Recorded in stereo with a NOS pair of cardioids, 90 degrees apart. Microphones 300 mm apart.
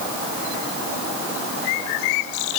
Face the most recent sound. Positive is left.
No sound to turn to.